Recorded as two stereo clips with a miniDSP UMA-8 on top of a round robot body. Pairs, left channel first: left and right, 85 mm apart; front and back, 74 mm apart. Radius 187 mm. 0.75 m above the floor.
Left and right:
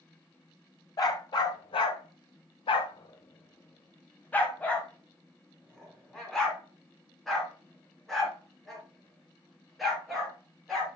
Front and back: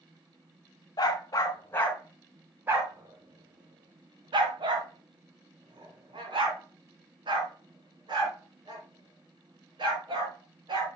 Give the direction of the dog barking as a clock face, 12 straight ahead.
11 o'clock.